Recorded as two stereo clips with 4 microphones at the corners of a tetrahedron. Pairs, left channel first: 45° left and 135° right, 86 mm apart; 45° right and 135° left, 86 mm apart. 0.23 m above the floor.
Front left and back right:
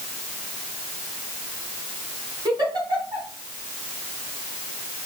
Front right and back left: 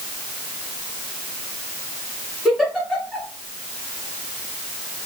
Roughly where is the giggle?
Behind right.